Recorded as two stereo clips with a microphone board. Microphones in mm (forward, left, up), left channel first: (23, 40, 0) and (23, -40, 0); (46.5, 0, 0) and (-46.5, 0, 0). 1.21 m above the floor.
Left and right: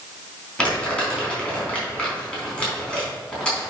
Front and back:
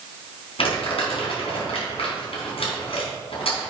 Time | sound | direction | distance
0.6 | crumpling | 15° left | 4 m